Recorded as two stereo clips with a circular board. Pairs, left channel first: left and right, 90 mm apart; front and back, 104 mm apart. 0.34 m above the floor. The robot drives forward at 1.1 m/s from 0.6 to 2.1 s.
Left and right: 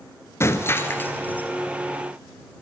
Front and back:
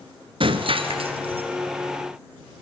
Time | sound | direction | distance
0.4 | breaking glass | 150° left | 1.5 m